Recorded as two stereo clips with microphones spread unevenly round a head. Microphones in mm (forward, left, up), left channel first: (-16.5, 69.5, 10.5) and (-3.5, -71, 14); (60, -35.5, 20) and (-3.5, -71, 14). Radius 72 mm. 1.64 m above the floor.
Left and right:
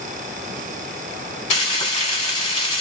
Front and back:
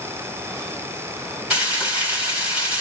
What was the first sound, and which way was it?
Frying, 125° left.